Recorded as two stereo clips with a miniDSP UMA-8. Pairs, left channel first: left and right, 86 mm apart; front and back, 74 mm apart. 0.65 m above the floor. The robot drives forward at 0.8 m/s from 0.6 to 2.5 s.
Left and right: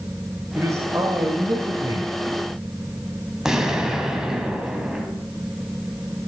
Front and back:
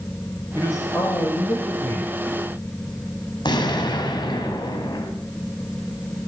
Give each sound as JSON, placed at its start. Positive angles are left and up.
{"t": 0.5, "sound": "a man speaking", "azimuth_deg": -40, "distance_m": 3.0}
{"t": 3.5, "sound": "an explosion", "azimuth_deg": -5, "distance_m": 2.5}